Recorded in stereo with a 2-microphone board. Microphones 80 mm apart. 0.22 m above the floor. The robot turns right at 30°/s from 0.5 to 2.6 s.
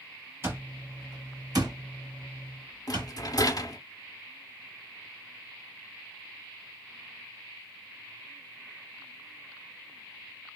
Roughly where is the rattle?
Left.